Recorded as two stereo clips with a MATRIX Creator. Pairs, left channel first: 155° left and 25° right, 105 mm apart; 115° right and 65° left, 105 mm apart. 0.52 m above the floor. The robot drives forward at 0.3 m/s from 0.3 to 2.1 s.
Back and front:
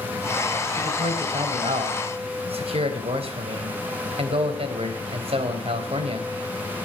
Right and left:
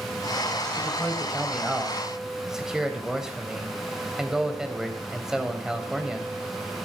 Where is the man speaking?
15° right, 3.5 m.